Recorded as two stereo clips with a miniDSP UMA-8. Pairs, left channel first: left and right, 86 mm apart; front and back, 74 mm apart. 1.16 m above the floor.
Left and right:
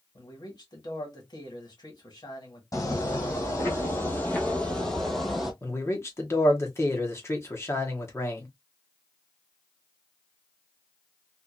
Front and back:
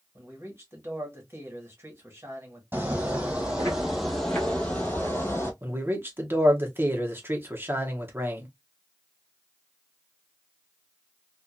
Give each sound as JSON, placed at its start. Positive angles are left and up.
{"t": 0.1, "sound": "a man speaking", "azimuth_deg": 125, "distance_m": 1.5}
{"t": 2.7, "sound": "footsteps", "azimuth_deg": 125, "distance_m": 1.8}
{"t": 5.6, "sound": "a man speaking", "azimuth_deg": 135, "distance_m": 0.9}